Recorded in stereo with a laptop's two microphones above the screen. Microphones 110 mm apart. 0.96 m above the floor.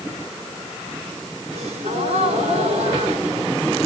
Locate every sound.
1.5 s a gasp: 70° right (ahead or behind), 4 m